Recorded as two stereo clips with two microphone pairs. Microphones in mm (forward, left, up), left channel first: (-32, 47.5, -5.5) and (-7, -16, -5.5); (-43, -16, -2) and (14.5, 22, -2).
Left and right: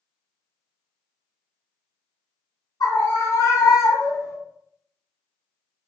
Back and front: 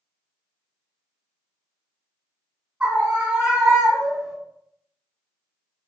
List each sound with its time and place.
2.8 s a scream: 105° left, 3.5 m; by 4.4 s 115° left, 2.5 m